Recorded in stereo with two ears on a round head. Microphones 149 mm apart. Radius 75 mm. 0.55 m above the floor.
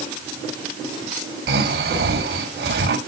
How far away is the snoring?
About 2 m.